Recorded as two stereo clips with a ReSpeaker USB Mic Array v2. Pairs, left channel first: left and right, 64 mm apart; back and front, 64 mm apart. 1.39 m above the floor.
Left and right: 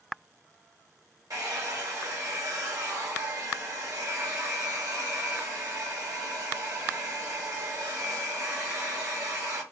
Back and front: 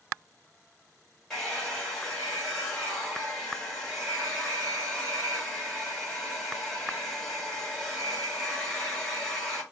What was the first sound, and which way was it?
A hair dryer, 100° right.